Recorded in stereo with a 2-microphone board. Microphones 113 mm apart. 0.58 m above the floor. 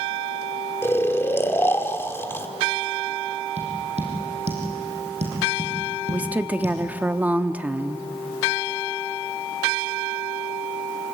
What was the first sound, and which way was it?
Snoring, 20° left (ahead or behind).